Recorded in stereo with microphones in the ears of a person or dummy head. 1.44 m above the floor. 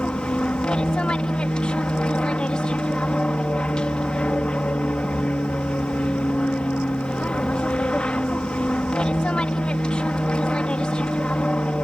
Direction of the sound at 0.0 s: 5° left (ahead or behind).